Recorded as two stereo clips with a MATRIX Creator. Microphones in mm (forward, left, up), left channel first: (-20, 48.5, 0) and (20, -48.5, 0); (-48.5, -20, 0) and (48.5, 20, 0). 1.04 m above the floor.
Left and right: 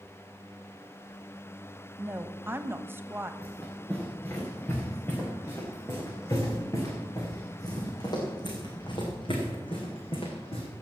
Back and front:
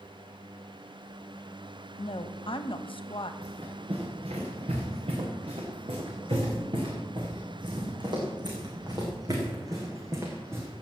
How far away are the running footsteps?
About 6 m.